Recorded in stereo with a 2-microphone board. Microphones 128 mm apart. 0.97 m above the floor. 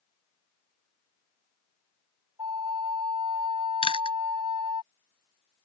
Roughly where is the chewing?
Left.